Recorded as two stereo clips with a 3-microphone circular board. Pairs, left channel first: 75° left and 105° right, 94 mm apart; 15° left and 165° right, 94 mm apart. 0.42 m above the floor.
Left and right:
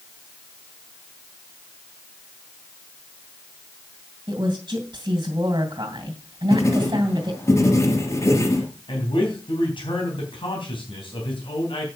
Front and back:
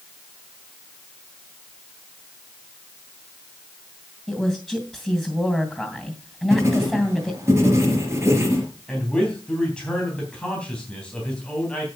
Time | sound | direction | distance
4.3 | a woman speaking | 65° right | 2.5 m
6.5 | writing | 135° left | 3 m
8.9 | a man speaking | 95° left | 3.5 m